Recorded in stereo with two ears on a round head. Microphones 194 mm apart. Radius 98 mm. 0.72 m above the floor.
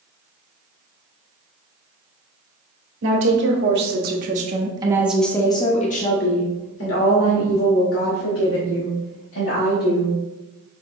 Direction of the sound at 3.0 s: 60° right (ahead or behind).